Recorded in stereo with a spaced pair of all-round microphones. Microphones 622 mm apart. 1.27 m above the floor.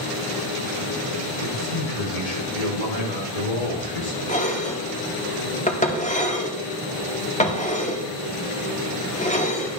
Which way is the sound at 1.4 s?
70° left (ahead or behind).